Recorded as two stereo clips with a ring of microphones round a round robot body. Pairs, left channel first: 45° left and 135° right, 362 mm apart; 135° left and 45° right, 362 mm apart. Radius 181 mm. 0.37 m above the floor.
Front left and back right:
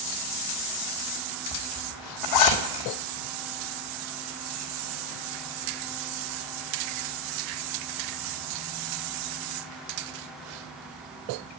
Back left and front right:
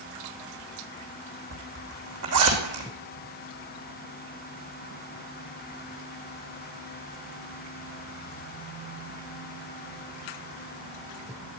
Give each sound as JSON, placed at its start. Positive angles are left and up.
{"t": 1.5, "sound": "a zipper", "azimuth_deg": 5, "distance_m": 3.0}